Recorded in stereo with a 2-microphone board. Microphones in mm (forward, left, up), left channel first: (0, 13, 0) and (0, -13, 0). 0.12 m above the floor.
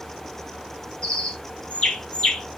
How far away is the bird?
About 1.9 m.